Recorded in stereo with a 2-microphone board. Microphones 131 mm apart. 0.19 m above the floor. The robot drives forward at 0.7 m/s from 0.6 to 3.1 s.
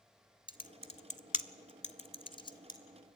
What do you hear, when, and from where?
0.5 s typing on a keyboard: 40° left (ahead or behind), 0.8 m; by 2.8 s 30° left (ahead or behind), 1.1 m